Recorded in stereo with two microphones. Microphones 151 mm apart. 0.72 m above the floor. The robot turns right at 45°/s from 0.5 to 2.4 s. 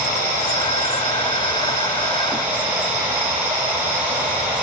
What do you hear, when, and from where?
0.0 s running water: 100° left, 5.5 m; by 4.6 s 170° right, 5.5 m